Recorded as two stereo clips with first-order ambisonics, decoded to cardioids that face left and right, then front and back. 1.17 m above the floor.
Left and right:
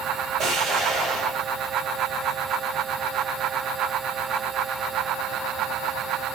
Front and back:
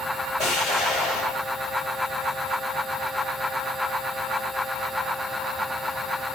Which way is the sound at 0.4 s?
45° right.